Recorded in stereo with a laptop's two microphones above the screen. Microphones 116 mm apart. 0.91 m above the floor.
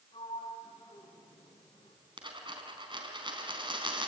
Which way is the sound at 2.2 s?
45° right (ahead or behind).